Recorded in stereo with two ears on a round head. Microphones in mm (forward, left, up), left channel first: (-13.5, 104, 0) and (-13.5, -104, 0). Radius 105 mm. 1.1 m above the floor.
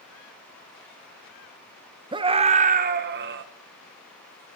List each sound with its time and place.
2.1 s a scream: 20° right (ahead or behind), 1.0 m; by 3.4 s 55° right (ahead or behind), 1.0 m